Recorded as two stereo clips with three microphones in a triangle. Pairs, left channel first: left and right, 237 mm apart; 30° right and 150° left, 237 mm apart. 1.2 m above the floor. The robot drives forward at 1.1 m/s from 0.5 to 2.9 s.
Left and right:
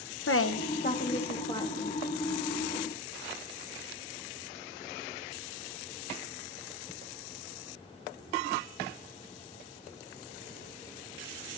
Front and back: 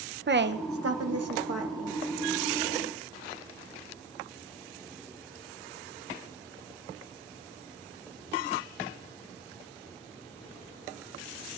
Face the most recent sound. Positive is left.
turn(degrees=170)